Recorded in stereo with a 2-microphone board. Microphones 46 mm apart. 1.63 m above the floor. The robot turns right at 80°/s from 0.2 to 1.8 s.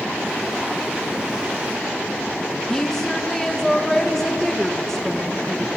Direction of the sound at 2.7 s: 10° left (ahead or behind).